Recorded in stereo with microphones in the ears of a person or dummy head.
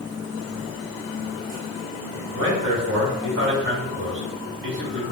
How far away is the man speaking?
About 0.8 m.